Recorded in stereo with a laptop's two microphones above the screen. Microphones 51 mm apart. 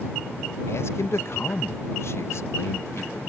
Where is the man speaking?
60° left (ahead or behind).